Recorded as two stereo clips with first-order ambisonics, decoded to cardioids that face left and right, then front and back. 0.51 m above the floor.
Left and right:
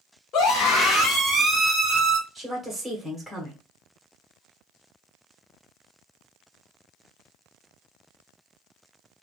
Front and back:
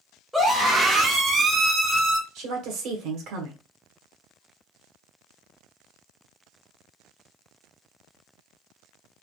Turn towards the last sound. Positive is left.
turn(degrees=-175)